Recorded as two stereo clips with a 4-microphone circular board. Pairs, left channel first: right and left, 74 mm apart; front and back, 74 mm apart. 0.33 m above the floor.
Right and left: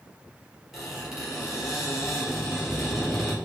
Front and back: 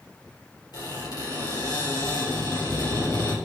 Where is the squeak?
5° left, 3.5 m.